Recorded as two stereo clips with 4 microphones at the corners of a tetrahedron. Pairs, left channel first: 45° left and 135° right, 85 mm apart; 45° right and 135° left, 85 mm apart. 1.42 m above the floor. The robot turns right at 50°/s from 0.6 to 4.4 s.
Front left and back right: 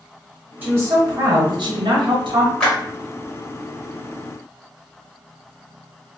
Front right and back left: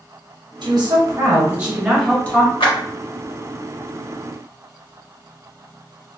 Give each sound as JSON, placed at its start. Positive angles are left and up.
{"t": 0.6, "sound": "a woman speaking", "azimuth_deg": 155, "distance_m": 1.1}
{"t": 2.6, "sound": "a clap", "azimuth_deg": -35, "distance_m": 1.3}